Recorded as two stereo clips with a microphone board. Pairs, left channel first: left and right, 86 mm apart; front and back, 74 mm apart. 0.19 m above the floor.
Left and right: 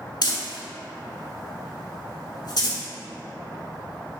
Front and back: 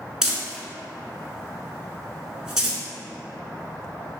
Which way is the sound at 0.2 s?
100° left.